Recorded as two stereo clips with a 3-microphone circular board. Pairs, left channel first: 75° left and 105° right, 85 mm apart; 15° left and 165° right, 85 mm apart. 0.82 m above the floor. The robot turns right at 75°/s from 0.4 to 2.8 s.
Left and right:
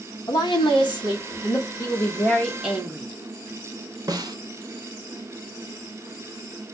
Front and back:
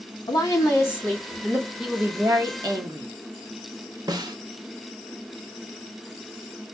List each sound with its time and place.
0.3 s a woman speaking: 45° left, 1.8 m; by 1.7 s 140° left, 1.8 m
1.8 s a woman speaking: 110° left, 1.2 m; by 3.1 s 175° right, 1.2 m
4.1 s a snare drum: 140° right, 0.9 m